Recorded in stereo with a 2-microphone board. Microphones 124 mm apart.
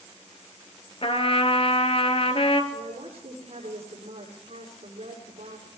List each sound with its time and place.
1.0 s a trumpet: 50° left (ahead or behind), 1.2 m
2.7 s a woman speaking: 55° right (ahead or behind), 6.5 m